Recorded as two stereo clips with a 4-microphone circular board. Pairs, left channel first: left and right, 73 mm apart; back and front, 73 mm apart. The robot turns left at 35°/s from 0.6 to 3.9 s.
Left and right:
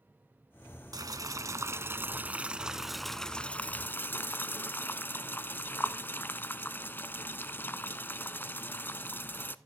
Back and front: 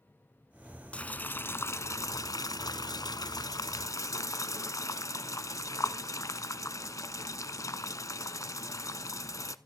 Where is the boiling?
110° right, 0.7 m; by 9.6 s 145° left, 0.7 m.